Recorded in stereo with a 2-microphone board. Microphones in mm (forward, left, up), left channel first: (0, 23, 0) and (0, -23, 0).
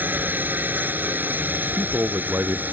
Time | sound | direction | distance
0.0 | a drone | 40° right (ahead or behind) | ?
1.6 | a man speaking | 55° right (ahead or behind) | ?